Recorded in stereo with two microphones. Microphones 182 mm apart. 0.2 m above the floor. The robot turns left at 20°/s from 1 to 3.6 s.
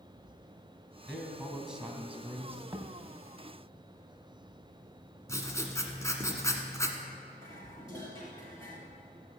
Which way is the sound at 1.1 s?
Centre (ahead or behind).